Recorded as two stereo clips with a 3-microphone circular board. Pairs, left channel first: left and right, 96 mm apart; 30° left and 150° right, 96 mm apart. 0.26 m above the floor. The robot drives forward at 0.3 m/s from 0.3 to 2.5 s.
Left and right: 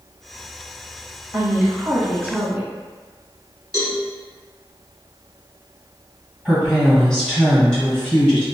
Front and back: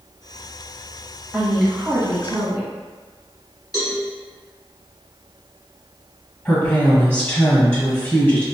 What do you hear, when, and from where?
1.3 s a woman speaking: 75° right, 0.9 m; by 2.7 s 135° right, 0.9 m
3.7 s a cowbell: 60° left, 0.9 m
6.5 s a woman speaking: 25° left, 1.3 m